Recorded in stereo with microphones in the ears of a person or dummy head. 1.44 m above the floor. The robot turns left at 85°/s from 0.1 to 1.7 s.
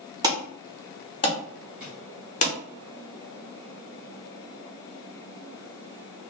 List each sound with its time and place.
0.2 s an alarm: 15° right (ahead or behind), 0.7 m; by 2.5 s 35° left (ahead or behind), 0.7 m
1.8 s a drawer: 10° right (ahead or behind), 1.1 m